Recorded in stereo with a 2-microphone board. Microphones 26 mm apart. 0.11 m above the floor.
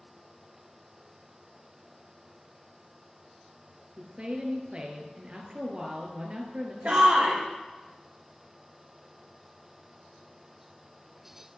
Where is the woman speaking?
40° right (ahead or behind), 1.8 m.